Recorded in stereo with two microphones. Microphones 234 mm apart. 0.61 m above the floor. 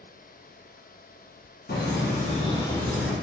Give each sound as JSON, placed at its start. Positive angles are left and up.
{"t": 1.7, "sound": "laughter", "side_deg": 45, "distance_m": 0.8}